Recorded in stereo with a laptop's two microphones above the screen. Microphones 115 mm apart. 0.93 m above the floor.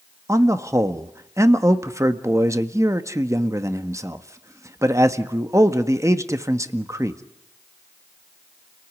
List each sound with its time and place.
0.3 s a man speaking: 25° right (ahead or behind), 1.6 m